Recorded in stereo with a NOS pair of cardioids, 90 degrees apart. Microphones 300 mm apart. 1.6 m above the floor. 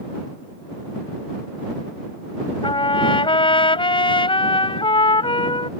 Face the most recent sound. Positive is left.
turn(degrees=15)